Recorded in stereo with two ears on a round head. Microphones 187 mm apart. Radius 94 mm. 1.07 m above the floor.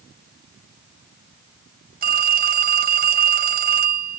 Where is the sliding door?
No sliding door in this recording.